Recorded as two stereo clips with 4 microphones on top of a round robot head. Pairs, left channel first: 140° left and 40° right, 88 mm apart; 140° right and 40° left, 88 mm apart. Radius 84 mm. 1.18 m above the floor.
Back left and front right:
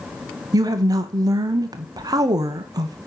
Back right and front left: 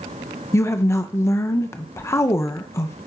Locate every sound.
0.5 s a woman speaking: 80° right, 0.7 m